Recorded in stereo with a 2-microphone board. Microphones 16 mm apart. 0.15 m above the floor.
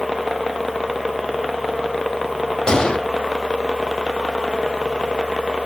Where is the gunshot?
75° left (ahead or behind), 1.0 m.